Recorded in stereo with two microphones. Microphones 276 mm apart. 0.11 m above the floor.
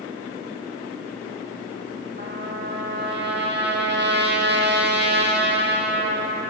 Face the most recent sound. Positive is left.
turn(degrees=-40)  # may be behind; listen again after turning